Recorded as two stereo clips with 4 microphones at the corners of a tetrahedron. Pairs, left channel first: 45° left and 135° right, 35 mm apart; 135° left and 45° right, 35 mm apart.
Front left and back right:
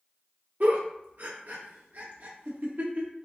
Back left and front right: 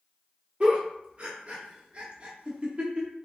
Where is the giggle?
105° right, 0.9 m.